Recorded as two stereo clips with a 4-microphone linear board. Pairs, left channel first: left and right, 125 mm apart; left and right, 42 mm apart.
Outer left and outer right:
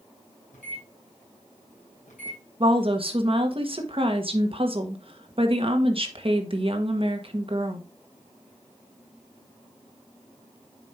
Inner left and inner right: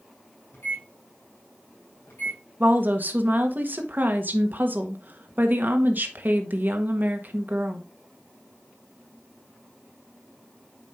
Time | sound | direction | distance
0.5 | a microwave | 85° left | 4.5 m
2.6 | a woman speaking | 45° right (ahead or behind) | 1.3 m